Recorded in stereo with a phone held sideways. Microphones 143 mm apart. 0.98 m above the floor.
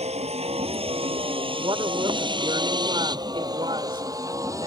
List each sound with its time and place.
0.0 s a vehicle: 45° right (ahead or behind); by 4.7 s 20° right (ahead or behind)
1.6 s a woman speaking: 35° right (ahead or behind)